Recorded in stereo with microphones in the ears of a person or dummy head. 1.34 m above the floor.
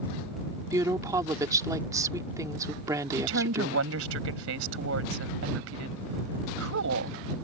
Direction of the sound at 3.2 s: 80° right.